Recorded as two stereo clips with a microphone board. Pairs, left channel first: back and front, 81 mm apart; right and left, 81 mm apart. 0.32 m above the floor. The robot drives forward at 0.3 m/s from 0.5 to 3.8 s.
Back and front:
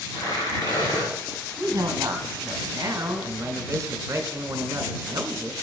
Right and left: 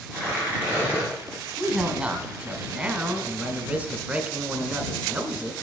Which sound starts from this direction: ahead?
A woman speaking, at 1.6 s.